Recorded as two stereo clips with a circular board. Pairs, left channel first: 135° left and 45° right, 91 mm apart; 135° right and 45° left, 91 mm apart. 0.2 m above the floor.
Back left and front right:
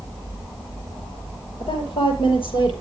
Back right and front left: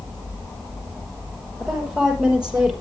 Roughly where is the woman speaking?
Behind left.